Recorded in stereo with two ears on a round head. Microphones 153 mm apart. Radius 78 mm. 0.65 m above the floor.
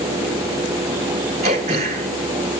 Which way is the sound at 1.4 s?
45° right (ahead or behind).